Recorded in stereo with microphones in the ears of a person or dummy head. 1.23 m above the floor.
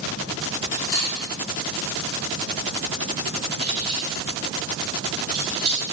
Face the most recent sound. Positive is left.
turn(degrees=-5)  # may be behind; listen again after turning